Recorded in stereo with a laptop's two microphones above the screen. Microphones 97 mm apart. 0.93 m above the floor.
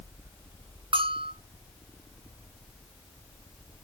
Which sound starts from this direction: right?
A bell, at 0.9 s.